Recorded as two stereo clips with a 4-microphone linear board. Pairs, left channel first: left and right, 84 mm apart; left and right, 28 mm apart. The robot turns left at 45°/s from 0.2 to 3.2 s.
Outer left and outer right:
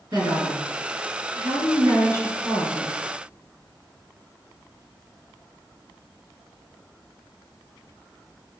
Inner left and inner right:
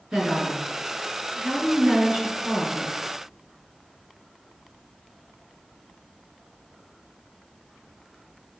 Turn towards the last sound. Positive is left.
turn(degrees=175)